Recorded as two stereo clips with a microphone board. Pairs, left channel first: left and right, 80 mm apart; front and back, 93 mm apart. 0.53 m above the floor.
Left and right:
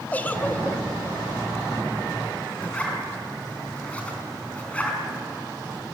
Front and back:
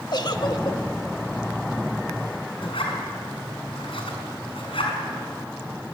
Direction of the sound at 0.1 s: 25° left.